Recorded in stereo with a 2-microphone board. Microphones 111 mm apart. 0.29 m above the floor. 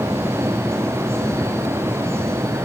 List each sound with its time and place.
Only background noise.